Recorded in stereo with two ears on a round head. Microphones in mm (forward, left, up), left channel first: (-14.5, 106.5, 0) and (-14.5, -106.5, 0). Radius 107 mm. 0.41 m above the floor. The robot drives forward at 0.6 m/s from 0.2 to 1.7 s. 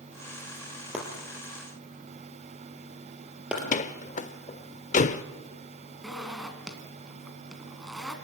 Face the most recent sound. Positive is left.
turn(degrees=0)  # may be behind; listen again after turning